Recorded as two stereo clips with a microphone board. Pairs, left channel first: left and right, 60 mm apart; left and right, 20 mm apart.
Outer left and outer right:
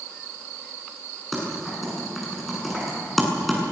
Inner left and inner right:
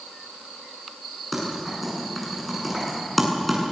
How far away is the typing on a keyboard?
About 8.5 m.